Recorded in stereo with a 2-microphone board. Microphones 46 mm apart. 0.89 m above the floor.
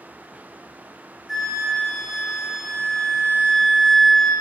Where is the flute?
Centre (ahead or behind), 2.0 m.